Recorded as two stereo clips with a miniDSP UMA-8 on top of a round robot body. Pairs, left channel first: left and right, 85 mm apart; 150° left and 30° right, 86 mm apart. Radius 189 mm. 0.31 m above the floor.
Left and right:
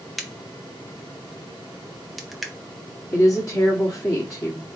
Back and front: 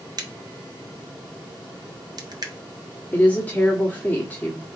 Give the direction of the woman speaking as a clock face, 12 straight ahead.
9 o'clock.